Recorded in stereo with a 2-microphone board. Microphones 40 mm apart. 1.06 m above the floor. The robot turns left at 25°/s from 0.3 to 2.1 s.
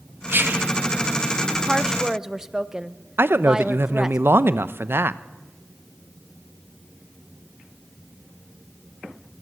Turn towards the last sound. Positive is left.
turn(degrees=-60)  # may be behind; listen again after turning